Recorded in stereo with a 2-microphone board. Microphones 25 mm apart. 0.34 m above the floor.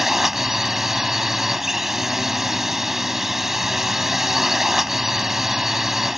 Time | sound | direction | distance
0.0 | a drone | 15° right (ahead or behind) | ?